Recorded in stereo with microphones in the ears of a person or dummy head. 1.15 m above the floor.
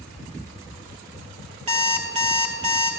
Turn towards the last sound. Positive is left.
turn(degrees=-40)  # may be behind; listen again after turning